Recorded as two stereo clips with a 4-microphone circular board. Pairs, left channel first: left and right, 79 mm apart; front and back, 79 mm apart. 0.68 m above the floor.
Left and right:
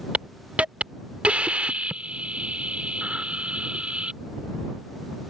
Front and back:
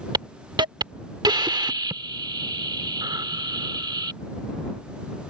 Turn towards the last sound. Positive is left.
turn(degrees=-165)